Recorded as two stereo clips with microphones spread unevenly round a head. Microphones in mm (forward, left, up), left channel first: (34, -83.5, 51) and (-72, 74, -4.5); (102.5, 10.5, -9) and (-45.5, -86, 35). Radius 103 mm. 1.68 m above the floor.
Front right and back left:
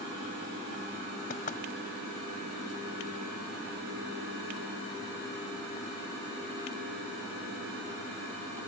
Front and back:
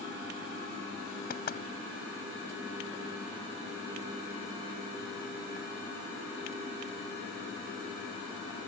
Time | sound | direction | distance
1.3 | knocking | 5° right | ?